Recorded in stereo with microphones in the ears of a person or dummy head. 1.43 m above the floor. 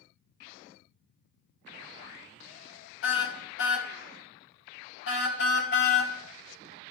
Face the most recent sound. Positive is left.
turn(degrees=65)  # may be behind; listen again after turning